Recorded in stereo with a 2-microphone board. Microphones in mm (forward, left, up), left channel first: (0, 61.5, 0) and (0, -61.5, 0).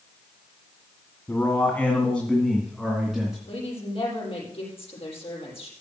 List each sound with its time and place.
1.3 s a man speaking: 20° left (ahead or behind), 1.9 m; by 3.4 s 5° right (ahead or behind), 3 m
3.5 s a woman speaking: 50° left (ahead or behind), 6.5 m